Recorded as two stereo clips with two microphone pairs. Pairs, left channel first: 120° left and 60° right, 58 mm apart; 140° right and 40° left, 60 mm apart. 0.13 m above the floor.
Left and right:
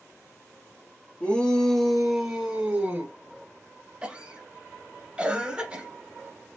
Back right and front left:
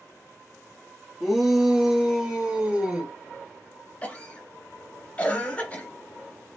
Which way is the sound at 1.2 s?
120° left.